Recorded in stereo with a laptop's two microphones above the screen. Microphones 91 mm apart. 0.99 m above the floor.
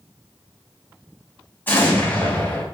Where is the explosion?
20° left (ahead or behind), 1.3 m.